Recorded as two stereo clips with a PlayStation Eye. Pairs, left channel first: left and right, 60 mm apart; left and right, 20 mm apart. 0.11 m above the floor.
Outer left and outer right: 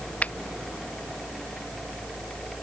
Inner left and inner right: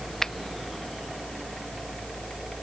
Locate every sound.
0.2 s a finger snap: 25° left (ahead or behind)